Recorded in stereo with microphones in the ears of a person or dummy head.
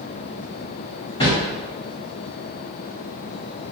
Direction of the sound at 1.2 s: 25° left (ahead or behind).